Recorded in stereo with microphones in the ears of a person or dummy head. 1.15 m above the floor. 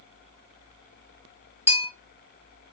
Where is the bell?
10° right (ahead or behind), 1.3 m.